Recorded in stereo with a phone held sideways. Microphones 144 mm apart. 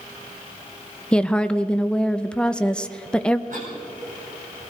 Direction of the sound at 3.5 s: 65° right (ahead or behind).